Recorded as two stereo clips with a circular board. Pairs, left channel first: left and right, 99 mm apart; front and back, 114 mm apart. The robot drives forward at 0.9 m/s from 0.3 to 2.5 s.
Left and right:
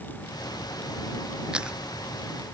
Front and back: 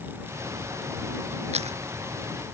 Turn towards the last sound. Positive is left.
turn(degrees=-170)